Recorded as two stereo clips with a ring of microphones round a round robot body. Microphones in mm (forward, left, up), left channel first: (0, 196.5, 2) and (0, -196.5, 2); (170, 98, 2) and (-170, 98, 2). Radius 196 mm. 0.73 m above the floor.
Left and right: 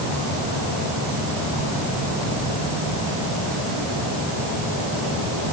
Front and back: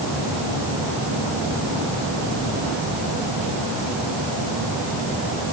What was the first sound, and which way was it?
Only background noise.